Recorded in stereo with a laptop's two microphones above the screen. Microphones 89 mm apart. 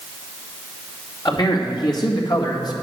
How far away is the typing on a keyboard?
I don't hear typing on a keyboard.